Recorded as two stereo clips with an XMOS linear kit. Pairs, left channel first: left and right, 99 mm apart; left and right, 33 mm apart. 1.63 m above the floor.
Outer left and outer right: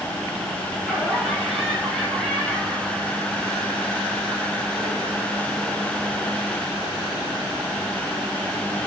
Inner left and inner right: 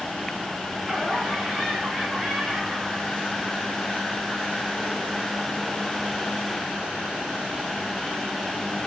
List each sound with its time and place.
0.8 s laughter: centre (ahead or behind), 5 m; by 6.4 s 30° right (ahead or behind), 3 m